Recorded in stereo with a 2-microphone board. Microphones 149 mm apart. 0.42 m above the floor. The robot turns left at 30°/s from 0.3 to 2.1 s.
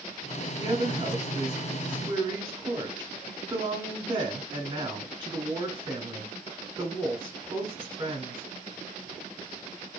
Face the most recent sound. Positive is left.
turn(degrees=-30)  # may be behind; listen again after turning